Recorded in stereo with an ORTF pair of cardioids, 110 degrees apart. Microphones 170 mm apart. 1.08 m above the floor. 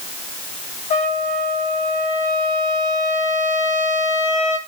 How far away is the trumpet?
About 1.1 m.